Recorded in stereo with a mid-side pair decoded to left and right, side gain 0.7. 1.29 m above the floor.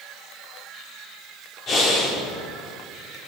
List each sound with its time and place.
1.7 s breathing: 40° left, 4 m